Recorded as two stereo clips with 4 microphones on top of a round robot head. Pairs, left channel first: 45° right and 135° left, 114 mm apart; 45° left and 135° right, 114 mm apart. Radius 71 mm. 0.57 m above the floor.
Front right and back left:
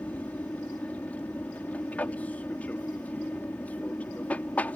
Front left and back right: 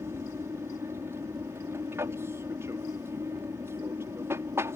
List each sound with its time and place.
0.0 s an aircraft: 105° right